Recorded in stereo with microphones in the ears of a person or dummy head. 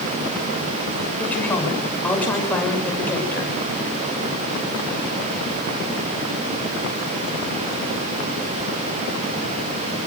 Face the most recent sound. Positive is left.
turn(degrees=10)  # may be behind; listen again after turning